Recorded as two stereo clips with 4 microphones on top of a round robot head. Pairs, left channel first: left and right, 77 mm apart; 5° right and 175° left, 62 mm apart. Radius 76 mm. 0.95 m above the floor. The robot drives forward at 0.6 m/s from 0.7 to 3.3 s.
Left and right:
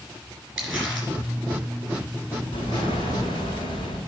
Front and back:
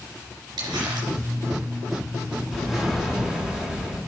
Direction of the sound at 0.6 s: Straight behind.